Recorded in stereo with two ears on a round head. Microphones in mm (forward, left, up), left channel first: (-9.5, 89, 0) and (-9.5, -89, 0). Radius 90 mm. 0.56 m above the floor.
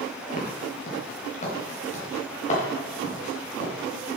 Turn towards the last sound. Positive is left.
turn(degrees=35)  # may be behind; listen again after turning